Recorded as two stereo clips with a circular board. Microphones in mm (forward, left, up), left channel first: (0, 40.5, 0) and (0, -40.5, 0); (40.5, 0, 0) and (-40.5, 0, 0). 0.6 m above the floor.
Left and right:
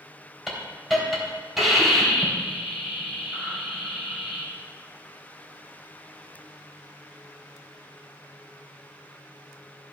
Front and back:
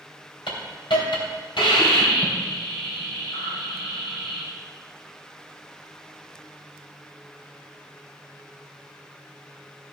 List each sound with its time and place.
0.5 s a hiss: 5° right, 3 m